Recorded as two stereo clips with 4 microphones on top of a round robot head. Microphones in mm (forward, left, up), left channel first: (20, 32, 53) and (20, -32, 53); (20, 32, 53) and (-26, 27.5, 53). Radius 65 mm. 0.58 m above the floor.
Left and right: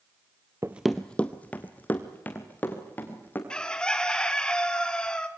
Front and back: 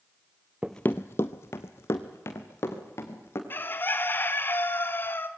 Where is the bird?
20° left, 1.6 m.